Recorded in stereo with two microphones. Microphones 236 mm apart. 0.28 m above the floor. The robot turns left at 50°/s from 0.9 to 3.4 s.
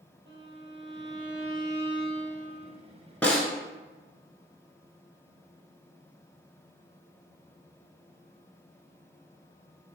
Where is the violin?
120° right, 1.4 m; by 2.8 s 145° left, 1.4 m.